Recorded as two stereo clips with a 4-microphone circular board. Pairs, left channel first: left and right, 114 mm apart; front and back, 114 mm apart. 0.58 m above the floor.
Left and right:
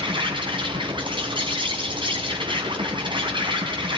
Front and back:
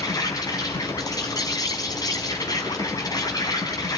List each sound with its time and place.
0.0 s an insect: 50° right, 5 m